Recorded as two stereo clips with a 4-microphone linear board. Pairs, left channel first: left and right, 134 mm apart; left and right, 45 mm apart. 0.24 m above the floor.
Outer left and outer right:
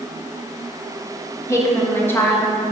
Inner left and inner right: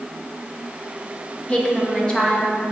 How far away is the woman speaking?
About 1.8 m.